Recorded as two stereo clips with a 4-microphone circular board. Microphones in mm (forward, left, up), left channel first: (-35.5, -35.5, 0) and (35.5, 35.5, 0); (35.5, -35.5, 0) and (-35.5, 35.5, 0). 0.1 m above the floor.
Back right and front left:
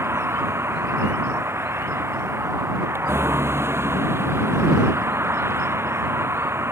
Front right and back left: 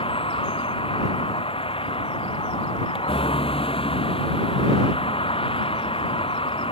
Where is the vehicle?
20° right.